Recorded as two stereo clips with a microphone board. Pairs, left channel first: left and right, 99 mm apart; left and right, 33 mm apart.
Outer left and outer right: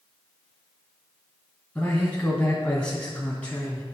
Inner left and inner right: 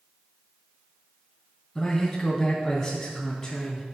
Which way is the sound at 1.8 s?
15° left (ahead or behind).